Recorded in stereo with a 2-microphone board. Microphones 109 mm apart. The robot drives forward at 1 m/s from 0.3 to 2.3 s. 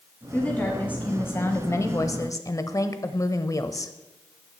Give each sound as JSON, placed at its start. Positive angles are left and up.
{"t": 0.3, "sound": "a woman speaking", "side_deg": 15, "distance_m": 2.0}